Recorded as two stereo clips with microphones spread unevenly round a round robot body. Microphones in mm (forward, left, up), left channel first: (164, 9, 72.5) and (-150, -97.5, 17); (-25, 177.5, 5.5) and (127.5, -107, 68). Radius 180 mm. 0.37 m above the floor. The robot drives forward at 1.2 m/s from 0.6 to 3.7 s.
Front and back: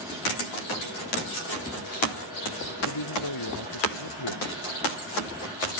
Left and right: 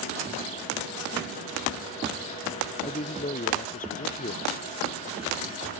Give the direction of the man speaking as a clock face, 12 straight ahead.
10 o'clock.